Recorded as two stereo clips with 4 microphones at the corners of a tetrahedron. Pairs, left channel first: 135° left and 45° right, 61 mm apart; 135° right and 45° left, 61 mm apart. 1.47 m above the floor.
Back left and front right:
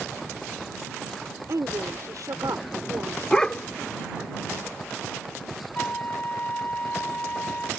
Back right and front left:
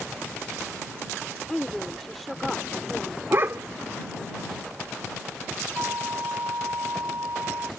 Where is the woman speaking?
50° right; by 3.2 s 40° right.